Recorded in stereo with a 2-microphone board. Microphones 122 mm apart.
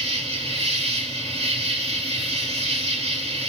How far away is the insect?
About 1.9 m.